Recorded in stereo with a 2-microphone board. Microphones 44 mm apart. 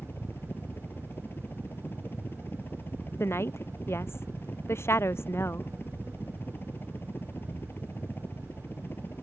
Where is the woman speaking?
70° left (ahead or behind).